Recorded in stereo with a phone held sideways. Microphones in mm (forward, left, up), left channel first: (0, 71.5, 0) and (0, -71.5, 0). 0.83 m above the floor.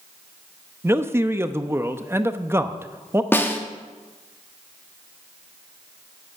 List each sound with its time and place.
0.8 s a man speaking: 20° right (ahead or behind), 0.8 m
3.3 s a snare drum: 15° left (ahead or behind), 1.4 m